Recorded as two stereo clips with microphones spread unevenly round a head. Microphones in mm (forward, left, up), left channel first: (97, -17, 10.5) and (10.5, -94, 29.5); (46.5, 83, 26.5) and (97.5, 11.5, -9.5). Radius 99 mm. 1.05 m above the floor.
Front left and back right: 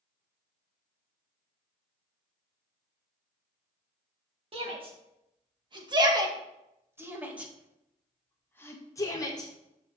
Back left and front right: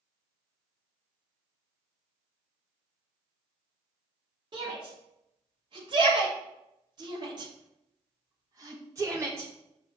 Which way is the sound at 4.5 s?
100° right.